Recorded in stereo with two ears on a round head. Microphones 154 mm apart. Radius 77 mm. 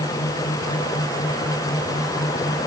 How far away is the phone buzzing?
I don't hear a phone buzzing.